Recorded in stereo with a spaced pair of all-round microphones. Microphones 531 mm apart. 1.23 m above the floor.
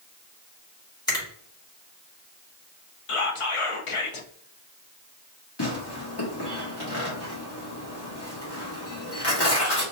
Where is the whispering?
70° left (ahead or behind), 0.8 m.